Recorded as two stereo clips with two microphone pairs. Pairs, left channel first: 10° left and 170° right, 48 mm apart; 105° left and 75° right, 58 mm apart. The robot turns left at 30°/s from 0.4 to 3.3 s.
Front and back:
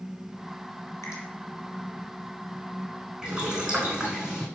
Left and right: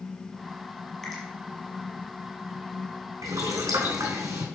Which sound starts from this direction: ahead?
A finger snap, at 1.0 s.